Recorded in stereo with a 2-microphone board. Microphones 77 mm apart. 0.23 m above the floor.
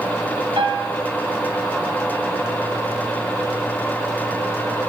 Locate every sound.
0.6 s a piano: 75° right (ahead or behind), 4.5 m